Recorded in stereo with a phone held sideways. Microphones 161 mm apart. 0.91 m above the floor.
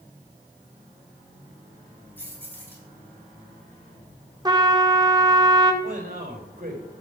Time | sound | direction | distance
2.2 | keys jangling | 10° left (ahead or behind) | 5 m
4.5 | a trumpet | 25° right (ahead or behind) | 1.5 m
5.8 | a man speaking | 55° right (ahead or behind) | 4.5 m